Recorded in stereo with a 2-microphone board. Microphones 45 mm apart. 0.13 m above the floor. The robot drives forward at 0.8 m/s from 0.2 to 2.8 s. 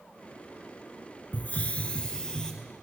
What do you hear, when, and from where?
1.3 s a hiss: 40° left (ahead or behind), 0.5 m; by 2.5 s 15° left (ahead or behind), 1.2 m